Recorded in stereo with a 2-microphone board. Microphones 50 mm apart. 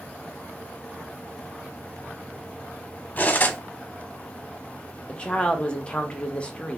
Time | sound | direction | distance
3.2 | cutlery clinking | 30° left (ahead or behind) | 0.8 m
5.1 | a woman speaking | 20° left (ahead or behind) | 0.8 m